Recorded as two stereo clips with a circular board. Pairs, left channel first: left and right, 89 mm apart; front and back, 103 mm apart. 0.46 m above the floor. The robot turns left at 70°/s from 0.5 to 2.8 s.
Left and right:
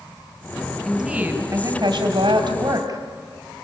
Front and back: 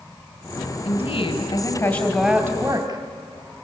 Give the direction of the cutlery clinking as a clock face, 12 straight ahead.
I don't hear cutlery clinking.